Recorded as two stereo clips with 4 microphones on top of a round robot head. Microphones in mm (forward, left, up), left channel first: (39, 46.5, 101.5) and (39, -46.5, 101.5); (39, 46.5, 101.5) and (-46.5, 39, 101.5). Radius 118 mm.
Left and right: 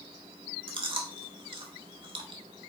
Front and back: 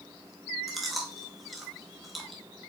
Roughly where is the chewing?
Right.